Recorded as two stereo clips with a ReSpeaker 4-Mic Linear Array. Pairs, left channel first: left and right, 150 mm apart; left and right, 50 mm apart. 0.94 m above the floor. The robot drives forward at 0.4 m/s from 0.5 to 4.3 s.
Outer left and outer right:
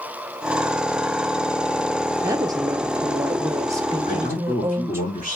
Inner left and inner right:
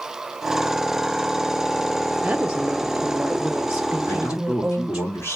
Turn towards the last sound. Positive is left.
turn(degrees=50)  # may be behind; listen again after turning